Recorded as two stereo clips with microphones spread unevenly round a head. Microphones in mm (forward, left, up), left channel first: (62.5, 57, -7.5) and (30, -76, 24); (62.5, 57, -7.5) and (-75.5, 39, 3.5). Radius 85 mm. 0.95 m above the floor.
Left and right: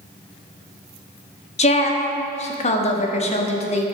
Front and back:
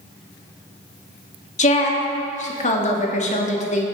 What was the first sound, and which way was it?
A woman speaking, 40° left.